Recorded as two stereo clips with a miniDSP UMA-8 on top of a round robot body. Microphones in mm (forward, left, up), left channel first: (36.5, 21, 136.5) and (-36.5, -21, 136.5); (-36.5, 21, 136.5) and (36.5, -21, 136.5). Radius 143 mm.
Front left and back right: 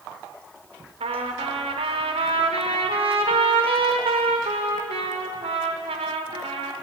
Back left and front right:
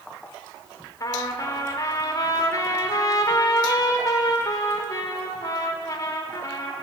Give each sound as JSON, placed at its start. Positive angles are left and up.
{"t": 1.0, "sound": "a trumpet", "azimuth_deg": -155, "distance_m": 0.8}